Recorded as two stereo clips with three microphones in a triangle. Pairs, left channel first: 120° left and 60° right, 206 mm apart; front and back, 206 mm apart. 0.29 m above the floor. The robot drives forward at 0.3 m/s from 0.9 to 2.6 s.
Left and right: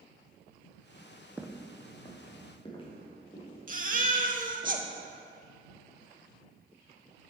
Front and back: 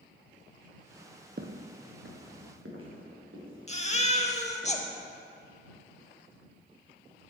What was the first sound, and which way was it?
Footsteps, 140° right.